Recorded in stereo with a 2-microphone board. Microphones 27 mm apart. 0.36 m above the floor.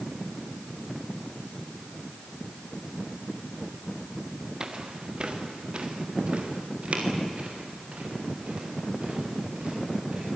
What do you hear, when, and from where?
4.6 s footsteps: 30° right (ahead or behind), 2.5 m; by 10.3 s 55° right (ahead or behind), 11 m